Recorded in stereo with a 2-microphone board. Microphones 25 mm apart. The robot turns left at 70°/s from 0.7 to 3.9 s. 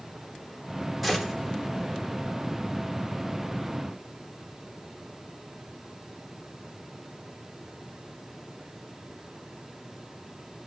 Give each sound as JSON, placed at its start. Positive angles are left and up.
{"t": 1.0, "sound": "a gunshot", "side_deg": 0, "distance_m": 1.0}